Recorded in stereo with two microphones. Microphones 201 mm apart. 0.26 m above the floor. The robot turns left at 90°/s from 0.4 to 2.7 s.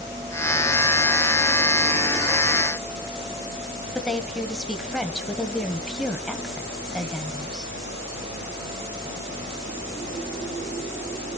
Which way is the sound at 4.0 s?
Centre (ahead or behind).